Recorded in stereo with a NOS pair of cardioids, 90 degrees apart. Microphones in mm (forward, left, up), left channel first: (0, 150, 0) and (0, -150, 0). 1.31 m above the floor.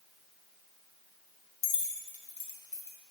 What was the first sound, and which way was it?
Keys jangling, 45° left.